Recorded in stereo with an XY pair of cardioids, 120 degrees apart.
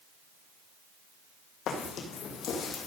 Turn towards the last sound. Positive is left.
turn(degrees=55)